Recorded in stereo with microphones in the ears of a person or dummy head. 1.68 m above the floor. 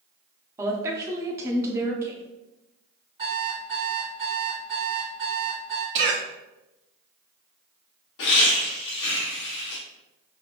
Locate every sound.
0.6 s a woman speaking: 15° right (ahead or behind), 0.6 m
3.2 s an alarm clock: 30° right (ahead or behind), 1.7 m
6.0 s a cough: 65° right (ahead or behind), 0.7 m
8.2 s laughter: 65° left (ahead or behind), 0.9 m